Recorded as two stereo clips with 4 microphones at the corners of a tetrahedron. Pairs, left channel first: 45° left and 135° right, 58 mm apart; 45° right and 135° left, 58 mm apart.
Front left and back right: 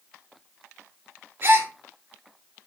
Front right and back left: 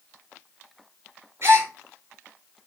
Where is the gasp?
175° left, 4 m.